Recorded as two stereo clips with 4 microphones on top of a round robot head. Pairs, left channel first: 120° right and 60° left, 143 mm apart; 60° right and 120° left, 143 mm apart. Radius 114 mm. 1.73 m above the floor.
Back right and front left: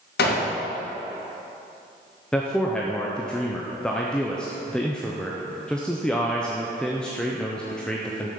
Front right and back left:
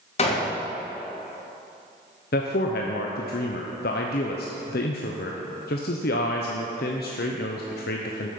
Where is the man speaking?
35° right, 0.7 m.